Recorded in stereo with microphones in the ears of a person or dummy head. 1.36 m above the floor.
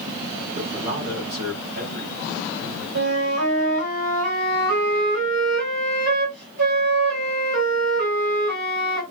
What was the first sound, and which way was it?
A man speaking, 45° right (ahead or behind).